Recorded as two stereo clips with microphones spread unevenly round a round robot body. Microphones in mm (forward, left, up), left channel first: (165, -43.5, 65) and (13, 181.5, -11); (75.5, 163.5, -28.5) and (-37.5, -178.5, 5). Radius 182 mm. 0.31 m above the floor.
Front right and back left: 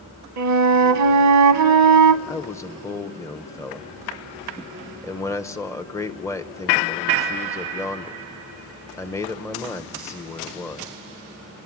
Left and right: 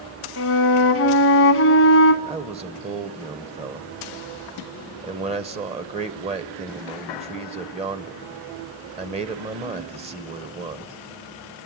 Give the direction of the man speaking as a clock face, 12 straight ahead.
5 o'clock.